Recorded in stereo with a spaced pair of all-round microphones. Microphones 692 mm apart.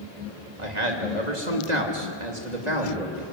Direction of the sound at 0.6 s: 75° right (ahead or behind).